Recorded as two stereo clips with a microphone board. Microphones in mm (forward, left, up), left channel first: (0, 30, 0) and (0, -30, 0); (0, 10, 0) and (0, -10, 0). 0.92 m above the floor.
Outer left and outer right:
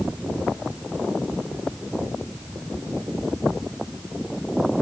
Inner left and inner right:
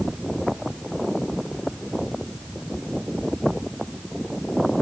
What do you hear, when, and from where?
Only background noise.